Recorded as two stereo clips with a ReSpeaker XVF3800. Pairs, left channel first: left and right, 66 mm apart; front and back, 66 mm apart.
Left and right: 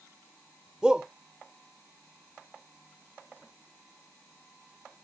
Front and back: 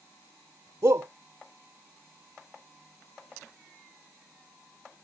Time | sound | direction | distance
0.8 | a shout | 165° right | ?